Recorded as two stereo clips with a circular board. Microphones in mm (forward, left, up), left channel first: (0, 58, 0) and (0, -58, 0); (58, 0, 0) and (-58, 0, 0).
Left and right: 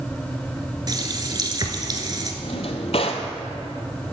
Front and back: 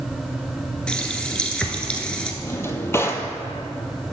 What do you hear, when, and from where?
0.9 s a running tap: 75° right, 1.0 m
2.4 s a drawer: 65° left, 0.9 m